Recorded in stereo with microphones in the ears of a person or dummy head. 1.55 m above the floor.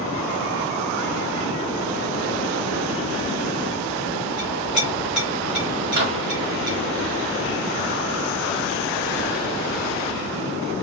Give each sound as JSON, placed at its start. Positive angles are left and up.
{"t": 4.4, "sound": "a clink", "side_deg": -5, "distance_m": 1.4}
{"t": 5.9, "sound": "a microwave", "side_deg": -50, "distance_m": 0.7}